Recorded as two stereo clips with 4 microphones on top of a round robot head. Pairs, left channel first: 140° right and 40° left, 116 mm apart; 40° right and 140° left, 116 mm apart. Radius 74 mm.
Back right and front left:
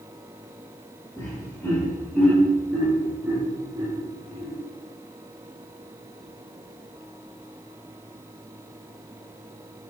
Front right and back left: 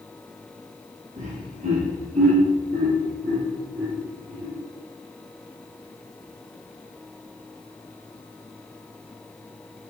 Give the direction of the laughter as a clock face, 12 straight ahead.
7 o'clock.